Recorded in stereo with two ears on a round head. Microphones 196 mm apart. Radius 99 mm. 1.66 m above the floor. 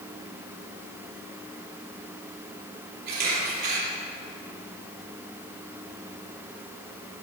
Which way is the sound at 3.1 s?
50° right (ahead or behind).